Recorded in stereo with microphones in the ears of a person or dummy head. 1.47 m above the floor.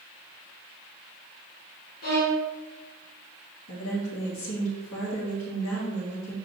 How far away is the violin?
About 1.0 m.